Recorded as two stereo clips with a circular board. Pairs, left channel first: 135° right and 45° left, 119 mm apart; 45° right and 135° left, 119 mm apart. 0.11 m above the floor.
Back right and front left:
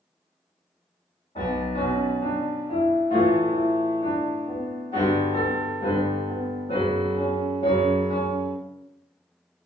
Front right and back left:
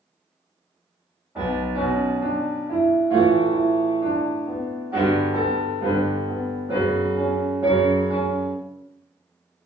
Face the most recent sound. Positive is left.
turn(degrees=-145)